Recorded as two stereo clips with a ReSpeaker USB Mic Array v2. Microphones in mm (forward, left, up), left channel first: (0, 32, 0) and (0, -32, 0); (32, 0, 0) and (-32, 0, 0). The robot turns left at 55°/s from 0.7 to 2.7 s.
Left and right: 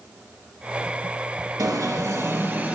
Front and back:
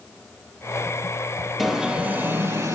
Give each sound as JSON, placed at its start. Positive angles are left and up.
{"t": 1.6, "sound": "an alarm", "azimuth_deg": -95, "distance_m": 4.0}